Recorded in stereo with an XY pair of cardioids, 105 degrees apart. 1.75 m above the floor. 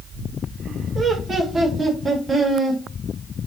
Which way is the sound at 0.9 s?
35° right.